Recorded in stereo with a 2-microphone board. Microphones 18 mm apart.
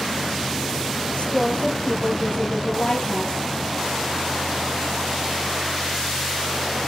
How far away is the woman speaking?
About 2.5 m.